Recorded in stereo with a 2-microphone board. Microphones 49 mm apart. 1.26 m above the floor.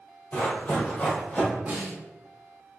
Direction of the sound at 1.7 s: 35° right (ahead or behind).